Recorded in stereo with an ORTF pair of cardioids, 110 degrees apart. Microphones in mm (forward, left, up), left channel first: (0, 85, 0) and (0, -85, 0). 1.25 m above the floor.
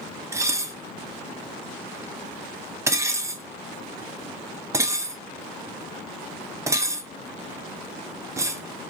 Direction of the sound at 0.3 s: 15° right.